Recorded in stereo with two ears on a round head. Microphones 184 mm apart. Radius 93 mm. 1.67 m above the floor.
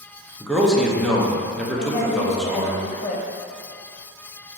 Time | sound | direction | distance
0.4 | a man speaking | centre (ahead or behind) | 0.5 m
1.8 | a woman speaking | 35° left (ahead or behind) | 0.5 m